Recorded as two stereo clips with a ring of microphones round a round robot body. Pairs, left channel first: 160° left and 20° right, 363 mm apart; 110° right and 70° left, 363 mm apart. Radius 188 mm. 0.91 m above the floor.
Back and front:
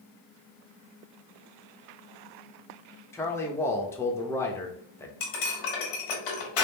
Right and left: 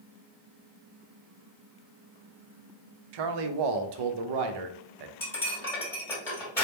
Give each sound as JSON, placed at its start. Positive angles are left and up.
{"t": 3.1, "sound": "a man speaking", "azimuth_deg": 75, "distance_m": 0.7}
{"t": 5.2, "sound": "cutlery clinking", "azimuth_deg": 165, "distance_m": 1.6}